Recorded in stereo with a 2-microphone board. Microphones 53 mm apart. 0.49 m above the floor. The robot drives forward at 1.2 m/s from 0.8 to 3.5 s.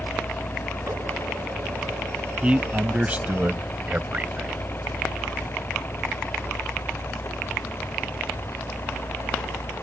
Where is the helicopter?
10° left (ahead or behind); by 9.8 s 50° left (ahead or behind).